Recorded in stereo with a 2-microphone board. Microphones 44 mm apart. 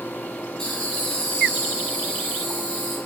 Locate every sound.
0.6 s laughter: 20° left (ahead or behind), 2.0 m